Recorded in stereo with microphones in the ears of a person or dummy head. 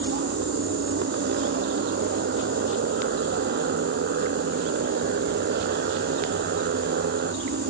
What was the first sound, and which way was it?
A motorcycle, 50° right (ahead or behind).